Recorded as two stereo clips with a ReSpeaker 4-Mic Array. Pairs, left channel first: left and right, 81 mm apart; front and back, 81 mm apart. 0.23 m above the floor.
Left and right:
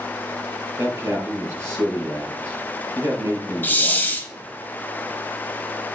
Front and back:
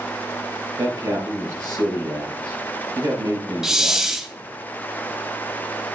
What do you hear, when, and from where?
0.8 s a man speaking: 140° right, 5 m
3.6 s a hiss: 105° left, 1.1 m